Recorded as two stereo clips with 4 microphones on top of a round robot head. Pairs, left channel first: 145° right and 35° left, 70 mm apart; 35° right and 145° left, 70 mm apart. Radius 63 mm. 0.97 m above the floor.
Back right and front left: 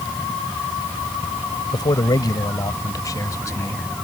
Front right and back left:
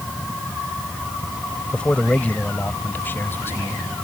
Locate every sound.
1.7 s a man speaking: 115° right; by 3.9 s 95° right